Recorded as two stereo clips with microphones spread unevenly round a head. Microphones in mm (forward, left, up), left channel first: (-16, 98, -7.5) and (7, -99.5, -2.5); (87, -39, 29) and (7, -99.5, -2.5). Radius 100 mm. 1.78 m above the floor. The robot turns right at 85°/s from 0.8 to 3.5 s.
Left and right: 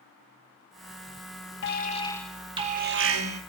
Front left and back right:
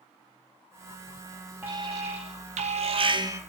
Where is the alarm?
130° left, 2.5 m; by 3.4 s 80° right, 2.5 m.